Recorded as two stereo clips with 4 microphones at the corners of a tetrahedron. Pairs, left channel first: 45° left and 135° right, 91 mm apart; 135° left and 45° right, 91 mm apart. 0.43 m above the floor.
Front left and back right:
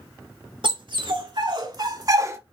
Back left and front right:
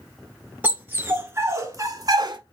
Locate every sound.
0.6 s a dog barking: 115° right, 1.6 m; by 2.4 s 80° right, 0.9 m